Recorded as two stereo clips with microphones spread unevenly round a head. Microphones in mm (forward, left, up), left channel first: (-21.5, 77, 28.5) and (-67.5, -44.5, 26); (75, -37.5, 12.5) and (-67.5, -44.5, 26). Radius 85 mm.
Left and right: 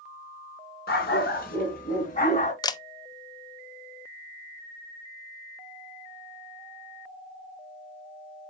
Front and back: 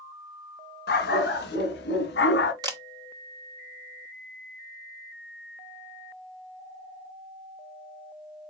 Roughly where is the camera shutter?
Behind left.